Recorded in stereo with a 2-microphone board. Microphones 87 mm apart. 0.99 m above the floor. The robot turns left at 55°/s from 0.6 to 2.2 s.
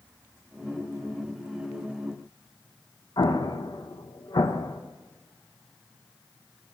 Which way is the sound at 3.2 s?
55° left (ahead or behind).